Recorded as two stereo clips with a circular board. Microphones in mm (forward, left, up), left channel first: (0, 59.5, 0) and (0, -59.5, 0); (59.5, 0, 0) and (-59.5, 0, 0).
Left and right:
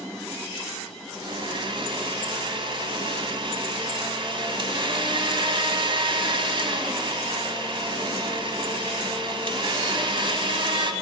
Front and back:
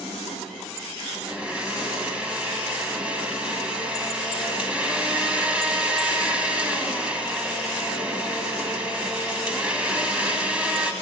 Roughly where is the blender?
Right.